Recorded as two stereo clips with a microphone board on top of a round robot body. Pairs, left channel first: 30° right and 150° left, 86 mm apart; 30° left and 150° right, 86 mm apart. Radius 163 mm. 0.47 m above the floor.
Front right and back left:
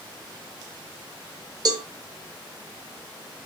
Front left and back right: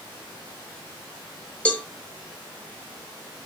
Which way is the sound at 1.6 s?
105° left.